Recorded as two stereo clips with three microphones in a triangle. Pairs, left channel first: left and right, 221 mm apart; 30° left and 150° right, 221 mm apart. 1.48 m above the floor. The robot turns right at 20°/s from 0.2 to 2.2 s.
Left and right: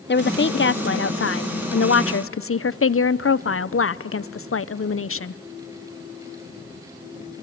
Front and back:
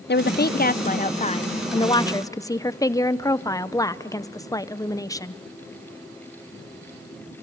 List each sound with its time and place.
0.1 s a woman speaking: 60° left, 0.5 m; by 5.4 s 100° left, 0.5 m